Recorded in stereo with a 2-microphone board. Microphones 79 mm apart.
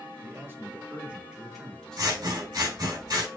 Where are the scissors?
60° right (ahead or behind), 3 m.